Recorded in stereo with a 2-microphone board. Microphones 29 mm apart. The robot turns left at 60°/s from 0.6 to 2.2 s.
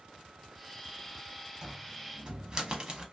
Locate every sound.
1.6 s a cupboard door: 25° right (ahead or behind), 0.7 m; by 3.0 s 30° right (ahead or behind), 0.7 m